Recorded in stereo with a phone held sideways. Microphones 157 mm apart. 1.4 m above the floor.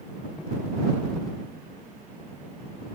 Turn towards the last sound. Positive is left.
No sound to turn to.